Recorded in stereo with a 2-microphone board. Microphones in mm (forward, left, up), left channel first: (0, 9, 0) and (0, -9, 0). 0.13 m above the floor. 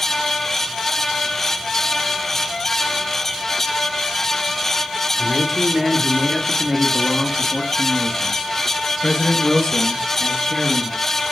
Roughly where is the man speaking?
Centre.